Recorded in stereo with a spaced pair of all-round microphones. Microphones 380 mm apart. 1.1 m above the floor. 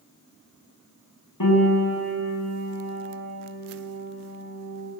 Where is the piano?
65° left (ahead or behind), 6.5 m.